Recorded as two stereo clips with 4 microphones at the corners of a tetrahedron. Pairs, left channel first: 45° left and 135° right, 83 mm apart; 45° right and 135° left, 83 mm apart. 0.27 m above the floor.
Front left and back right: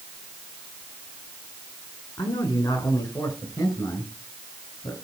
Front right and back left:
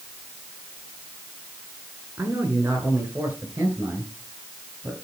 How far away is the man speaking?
About 4 m.